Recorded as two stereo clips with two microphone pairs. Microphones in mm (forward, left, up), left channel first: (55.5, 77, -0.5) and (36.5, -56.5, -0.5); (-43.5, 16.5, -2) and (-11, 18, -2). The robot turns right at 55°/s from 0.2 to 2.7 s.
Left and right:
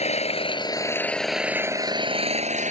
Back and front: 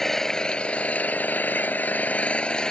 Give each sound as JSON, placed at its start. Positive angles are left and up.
{"t": 0.0, "sound": "an engine running", "azimuth_deg": 110}